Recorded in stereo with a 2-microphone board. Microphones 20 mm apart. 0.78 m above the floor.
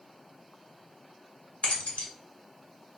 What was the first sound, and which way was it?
Keys jangling, 85° left.